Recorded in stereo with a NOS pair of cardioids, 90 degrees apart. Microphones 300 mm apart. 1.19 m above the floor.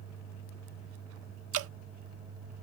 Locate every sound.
1.5 s dripping: 55° right